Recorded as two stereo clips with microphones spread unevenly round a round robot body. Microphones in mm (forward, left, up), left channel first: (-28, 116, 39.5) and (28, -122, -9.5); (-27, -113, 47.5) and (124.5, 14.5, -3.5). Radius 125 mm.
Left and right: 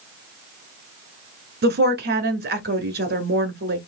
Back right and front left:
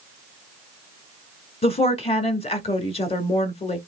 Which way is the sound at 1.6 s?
75° right.